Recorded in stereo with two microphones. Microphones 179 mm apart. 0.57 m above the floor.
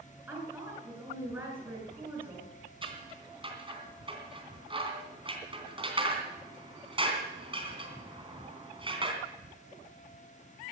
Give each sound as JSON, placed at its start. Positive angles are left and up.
{"t": 0.3, "sound": "a woman speaking", "side_deg": -10, "distance_m": 6.5}
{"t": 2.8, "sound": "scissors", "side_deg": -30, "distance_m": 3.0}